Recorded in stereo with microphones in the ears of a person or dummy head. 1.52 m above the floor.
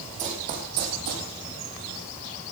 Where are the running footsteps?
35° right (ahead or behind), 3.5 m; by 1.3 s 55° right (ahead or behind), 3 m.